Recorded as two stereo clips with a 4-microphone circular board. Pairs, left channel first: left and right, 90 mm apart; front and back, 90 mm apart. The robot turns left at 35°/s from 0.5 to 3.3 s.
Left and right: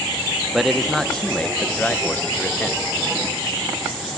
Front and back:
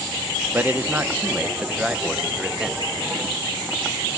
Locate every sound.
0.5 s a man speaking: straight behind, 0.6 m; by 2.8 s 100° left, 0.6 m